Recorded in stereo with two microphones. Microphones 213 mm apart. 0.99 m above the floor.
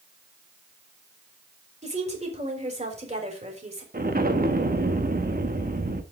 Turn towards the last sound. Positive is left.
turn(degrees=-45)  # may be behind; listen again after turning